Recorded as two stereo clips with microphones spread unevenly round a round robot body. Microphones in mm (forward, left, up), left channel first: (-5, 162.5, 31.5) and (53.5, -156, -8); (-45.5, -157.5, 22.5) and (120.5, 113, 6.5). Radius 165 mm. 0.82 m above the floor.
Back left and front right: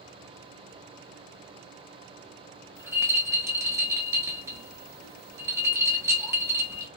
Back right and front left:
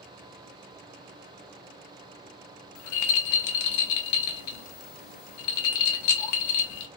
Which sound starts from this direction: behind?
A rattle, at 2.8 s.